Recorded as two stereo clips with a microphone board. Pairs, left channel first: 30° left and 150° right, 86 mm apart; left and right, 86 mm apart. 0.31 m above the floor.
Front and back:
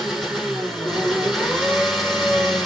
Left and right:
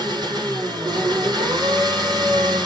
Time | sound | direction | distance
0.0 | an engine running | 60° right | 3.5 m